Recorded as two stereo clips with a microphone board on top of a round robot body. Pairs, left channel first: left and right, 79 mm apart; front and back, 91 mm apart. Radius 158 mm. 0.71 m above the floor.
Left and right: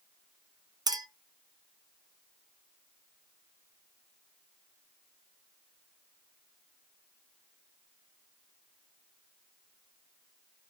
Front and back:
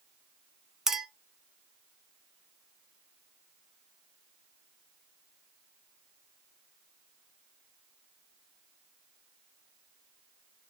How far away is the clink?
About 0.7 m.